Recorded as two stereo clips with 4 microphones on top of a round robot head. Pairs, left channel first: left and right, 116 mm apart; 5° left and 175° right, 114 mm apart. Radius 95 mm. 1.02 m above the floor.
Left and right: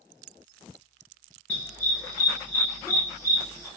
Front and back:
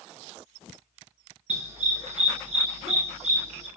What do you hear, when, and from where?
1.5 s a dog barking: 170° left, 6.5 m; by 3.7 s 165° left, 5.5 m